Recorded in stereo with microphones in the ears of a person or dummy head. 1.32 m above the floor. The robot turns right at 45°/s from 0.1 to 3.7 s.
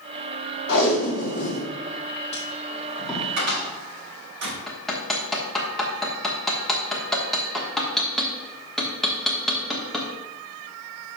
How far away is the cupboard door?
About 3.5 m.